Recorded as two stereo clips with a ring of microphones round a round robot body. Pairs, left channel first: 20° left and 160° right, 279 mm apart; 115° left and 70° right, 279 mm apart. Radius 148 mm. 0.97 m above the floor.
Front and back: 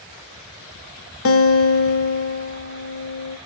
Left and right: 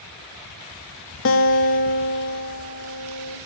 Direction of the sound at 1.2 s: 65° left.